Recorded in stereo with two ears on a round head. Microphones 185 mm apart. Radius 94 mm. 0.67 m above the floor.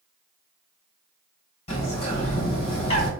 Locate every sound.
1.7 s a bird: 30° left (ahead or behind), 2.5 m